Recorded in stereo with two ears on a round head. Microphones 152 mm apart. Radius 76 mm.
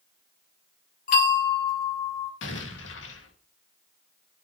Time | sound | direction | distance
1.1 | a bell | 45° left (ahead or behind) | 3 m
2.4 | an explosion | 80° left | 3 m